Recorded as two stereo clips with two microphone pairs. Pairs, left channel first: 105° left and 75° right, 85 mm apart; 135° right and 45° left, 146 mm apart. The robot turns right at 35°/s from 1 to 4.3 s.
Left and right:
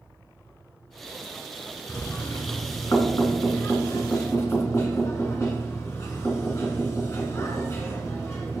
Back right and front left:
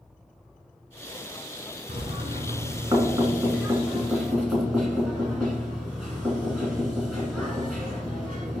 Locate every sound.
1.9 s knocking: 50° left, 1.5 m; by 8.6 s 135° left, 1.5 m